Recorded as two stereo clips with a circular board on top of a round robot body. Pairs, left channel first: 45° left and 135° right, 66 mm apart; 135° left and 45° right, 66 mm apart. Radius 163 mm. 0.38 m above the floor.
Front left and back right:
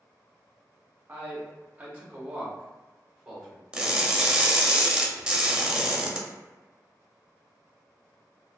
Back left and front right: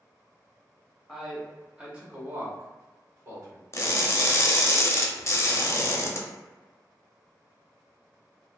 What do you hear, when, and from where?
1.1 s a man speaking: 140° right, 1.0 m; by 3.6 s 55° right, 1.5 m
3.7 s crushing: 155° left, 0.7 m